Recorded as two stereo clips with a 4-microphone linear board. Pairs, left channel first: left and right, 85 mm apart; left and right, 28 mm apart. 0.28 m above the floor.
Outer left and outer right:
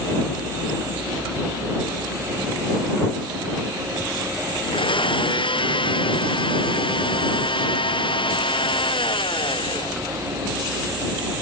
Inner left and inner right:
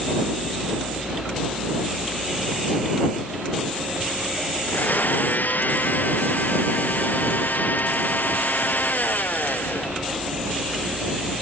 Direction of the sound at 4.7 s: 80° left.